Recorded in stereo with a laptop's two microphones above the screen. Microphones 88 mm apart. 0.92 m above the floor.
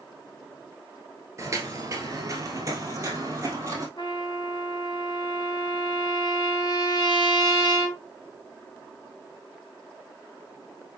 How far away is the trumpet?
About 2 m.